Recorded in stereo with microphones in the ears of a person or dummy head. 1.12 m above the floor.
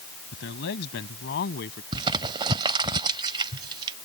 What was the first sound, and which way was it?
A man speaking, 65° left (ahead or behind).